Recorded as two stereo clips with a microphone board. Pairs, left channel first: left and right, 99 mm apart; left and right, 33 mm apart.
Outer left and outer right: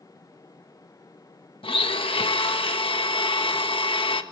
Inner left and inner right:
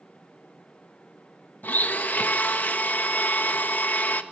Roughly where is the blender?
Left.